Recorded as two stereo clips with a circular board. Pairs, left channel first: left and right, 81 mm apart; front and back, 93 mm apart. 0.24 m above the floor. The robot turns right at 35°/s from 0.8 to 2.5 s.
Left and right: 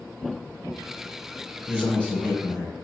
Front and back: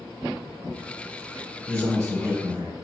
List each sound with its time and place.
1.7 s a man speaking: 135° left, 1.1 m; by 2.7 s 165° left, 1.1 m